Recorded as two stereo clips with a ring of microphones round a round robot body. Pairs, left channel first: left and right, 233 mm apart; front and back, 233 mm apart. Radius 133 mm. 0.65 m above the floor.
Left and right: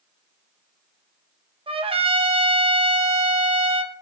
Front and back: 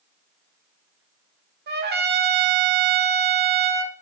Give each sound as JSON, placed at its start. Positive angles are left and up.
{"t": 1.7, "sound": "a trumpet", "azimuth_deg": -150, "distance_m": 1.3}